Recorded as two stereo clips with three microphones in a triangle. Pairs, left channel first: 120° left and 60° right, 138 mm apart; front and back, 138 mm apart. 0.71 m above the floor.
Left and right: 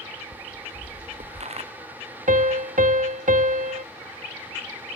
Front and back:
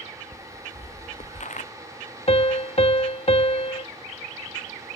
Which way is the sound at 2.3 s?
40° right.